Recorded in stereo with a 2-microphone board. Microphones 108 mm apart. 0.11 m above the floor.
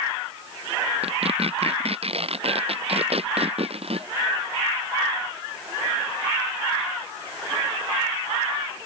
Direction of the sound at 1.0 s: 65° right (ahead or behind).